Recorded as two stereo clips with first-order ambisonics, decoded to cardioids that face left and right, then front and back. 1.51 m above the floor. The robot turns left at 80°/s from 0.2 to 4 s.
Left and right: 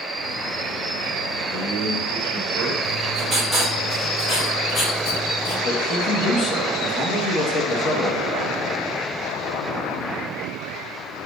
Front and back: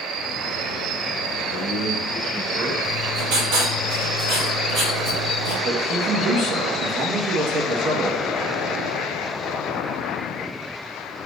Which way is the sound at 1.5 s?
15° right.